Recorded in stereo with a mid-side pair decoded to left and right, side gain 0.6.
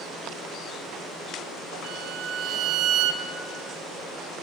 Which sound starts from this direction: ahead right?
A violin, at 1.8 s.